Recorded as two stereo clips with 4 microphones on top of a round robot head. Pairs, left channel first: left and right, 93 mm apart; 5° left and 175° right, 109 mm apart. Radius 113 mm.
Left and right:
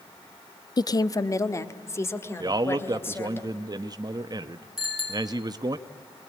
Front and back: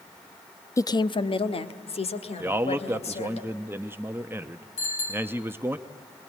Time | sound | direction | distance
0.8 | a woman speaking | 60° left | 0.7 m
2.4 | a man speaking | 110° right | 0.8 m
4.8 | a bicycle bell | straight ahead | 7 m